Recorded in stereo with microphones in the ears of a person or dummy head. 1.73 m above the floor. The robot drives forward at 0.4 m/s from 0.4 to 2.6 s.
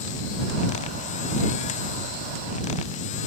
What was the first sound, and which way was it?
Only background noise.